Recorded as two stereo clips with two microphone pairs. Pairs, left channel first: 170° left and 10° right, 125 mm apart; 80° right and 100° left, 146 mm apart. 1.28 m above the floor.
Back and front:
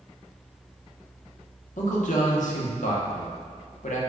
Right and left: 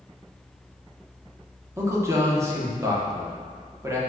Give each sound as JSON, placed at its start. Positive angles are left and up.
{"t": 1.8, "sound": "a man speaking", "azimuth_deg": 170, "distance_m": 0.8}